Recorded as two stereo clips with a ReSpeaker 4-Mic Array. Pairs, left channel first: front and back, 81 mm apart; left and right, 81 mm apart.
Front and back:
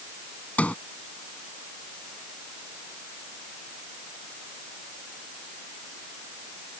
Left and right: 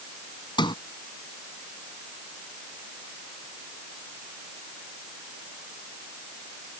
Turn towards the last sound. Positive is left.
turn(degrees=70)